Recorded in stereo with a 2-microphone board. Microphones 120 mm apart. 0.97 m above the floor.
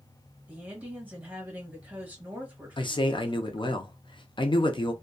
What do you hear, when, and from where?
0.5 s a woman speaking: 15° right (ahead or behind), 1.1 m
2.8 s a man speaking: 45° left (ahead or behind), 0.6 m